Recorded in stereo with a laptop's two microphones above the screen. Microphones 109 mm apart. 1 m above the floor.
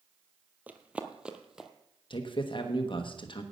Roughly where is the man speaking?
Left.